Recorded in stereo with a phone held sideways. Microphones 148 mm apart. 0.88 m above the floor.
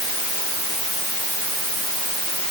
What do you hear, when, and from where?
Only background noise.